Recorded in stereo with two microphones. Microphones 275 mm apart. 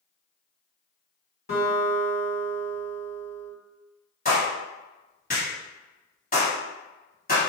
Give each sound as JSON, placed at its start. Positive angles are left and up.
{"t": 1.5, "sound": "a guitar", "side_deg": 35, "distance_m": 1.8}
{"t": 4.2, "sound": "a clap", "side_deg": 30, "distance_m": 1.7}